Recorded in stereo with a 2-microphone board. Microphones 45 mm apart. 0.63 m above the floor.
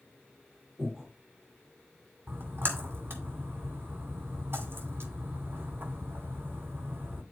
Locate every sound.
0.8 s breathing: 20° right (ahead or behind), 5.5 m
2.3 s a splash: 55° right (ahead or behind), 2.5 m